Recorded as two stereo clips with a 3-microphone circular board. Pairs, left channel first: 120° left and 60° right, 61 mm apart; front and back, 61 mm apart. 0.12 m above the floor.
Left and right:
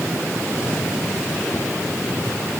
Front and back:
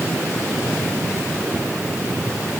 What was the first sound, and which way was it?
Only background noise.